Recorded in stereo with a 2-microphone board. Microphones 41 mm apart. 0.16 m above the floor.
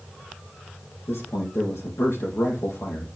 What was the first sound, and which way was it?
A man speaking, 70° left (ahead or behind).